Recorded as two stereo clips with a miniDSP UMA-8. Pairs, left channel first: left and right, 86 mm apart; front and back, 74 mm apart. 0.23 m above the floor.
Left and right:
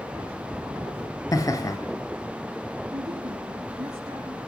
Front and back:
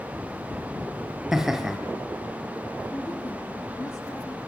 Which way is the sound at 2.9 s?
55° right.